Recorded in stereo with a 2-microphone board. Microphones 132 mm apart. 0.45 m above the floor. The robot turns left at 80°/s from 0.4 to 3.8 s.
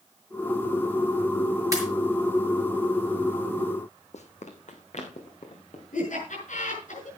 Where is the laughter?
70° left (ahead or behind), 5.5 m.